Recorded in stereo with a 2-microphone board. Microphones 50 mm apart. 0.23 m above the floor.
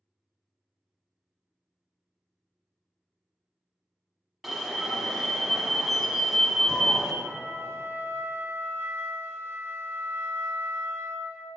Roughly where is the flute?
Right.